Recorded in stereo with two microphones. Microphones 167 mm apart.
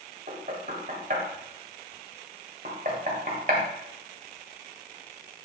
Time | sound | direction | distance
0.3 | knocking | 60° right (ahead or behind) | 1.4 m